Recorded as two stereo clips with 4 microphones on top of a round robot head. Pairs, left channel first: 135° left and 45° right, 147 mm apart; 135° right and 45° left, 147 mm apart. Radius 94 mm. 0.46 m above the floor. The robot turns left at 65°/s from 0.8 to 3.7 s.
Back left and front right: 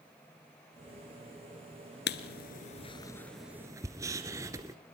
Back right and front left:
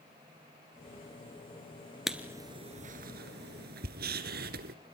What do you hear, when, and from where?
2.1 s writing: 130° left, 1.7 m; by 4.8 s 25° left, 1.7 m